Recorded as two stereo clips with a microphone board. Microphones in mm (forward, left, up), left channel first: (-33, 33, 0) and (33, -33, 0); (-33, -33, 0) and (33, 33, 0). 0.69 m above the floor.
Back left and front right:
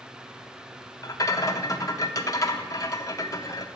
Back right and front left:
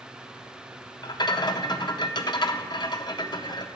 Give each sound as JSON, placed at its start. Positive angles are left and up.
{"t": 1.0, "sound": "a rattle", "azimuth_deg": -175, "distance_m": 0.6}